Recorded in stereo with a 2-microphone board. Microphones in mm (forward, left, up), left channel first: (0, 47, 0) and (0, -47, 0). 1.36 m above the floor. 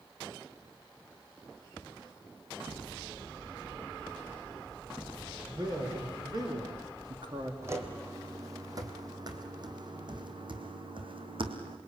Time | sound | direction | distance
5.5 | a man speaking | 45° right (ahead or behind) | 5 m
7.6 | footsteps | 25° right (ahead or behind) | 2.5 m